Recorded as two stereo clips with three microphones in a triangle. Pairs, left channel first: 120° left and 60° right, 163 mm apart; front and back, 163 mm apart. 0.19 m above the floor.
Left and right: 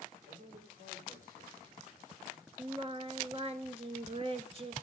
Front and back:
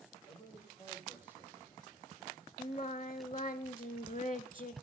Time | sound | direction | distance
0.3 | a man speaking | 55° right | 5 m
2.6 | singing | 20° right | 0.5 m